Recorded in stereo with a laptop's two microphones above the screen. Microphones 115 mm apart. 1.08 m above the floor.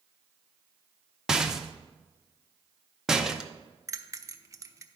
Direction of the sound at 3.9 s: 30° right (ahead or behind).